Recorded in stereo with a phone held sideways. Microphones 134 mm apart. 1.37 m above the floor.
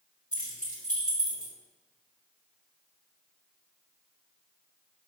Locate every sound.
0.3 s keys jangling: 65° left (ahead or behind), 1.9 m